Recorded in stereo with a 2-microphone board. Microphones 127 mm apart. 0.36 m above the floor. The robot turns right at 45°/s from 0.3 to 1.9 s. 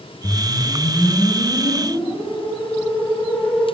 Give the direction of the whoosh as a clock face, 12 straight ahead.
9 o'clock.